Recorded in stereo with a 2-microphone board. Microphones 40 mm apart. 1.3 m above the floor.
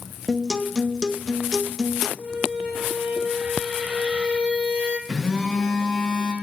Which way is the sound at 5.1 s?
5° right (ahead or behind).